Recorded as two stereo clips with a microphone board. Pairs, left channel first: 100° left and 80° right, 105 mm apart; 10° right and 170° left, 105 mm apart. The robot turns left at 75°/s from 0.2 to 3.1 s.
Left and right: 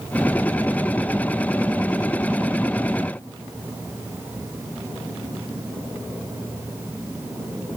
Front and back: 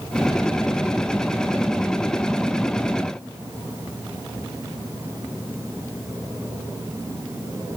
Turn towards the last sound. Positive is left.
No sound to turn to.